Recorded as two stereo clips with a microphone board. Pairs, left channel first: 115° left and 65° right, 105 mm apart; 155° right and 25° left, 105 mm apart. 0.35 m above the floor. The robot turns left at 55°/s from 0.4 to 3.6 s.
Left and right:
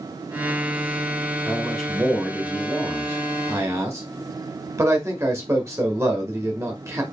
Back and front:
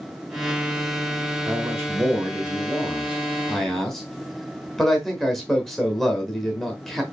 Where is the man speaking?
45° left, 1.0 m; by 7.0 s 75° right, 1.0 m.